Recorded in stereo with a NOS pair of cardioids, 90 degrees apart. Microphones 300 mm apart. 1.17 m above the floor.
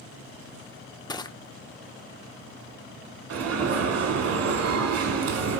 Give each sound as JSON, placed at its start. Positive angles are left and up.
{"t": 1.1, "sound": "crushing", "azimuth_deg": 15, "distance_m": 0.7}
{"t": 3.3, "sound": "an alarm", "azimuth_deg": -55, "distance_m": 1.8}